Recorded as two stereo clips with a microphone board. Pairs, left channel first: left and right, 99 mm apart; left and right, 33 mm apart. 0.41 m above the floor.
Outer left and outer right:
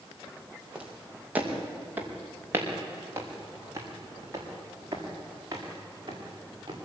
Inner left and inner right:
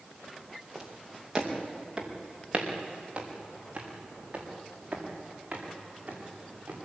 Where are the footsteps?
10° right (ahead or behind), 4.5 m; by 6.8 s 40° right (ahead or behind), 8.5 m.